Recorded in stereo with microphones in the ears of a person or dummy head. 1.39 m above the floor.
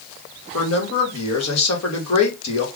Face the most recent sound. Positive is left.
turn(degrees=75)  # may be behind; listen again after turning